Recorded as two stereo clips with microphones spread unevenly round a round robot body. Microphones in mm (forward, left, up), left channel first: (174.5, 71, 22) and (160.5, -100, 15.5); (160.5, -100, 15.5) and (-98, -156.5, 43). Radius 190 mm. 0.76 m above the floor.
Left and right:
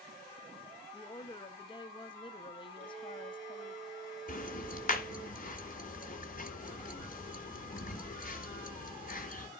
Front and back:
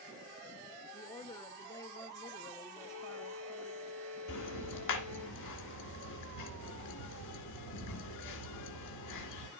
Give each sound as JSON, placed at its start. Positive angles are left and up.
{"t": 0.9, "sound": "a woman speaking", "azimuth_deg": 60, "distance_m": 0.6}
{"t": 2.8, "sound": "a violin", "azimuth_deg": -105, "distance_m": 7.5}
{"t": 4.3, "sound": "ticking", "azimuth_deg": 45, "distance_m": 2.0}